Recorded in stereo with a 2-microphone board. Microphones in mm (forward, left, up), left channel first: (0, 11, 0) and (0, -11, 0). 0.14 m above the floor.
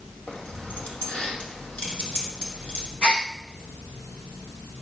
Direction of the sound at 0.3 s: 75° left (ahead or behind).